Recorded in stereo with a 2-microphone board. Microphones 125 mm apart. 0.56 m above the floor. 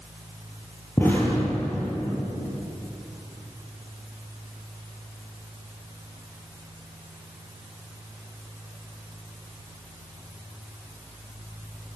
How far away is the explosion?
About 7.5 m.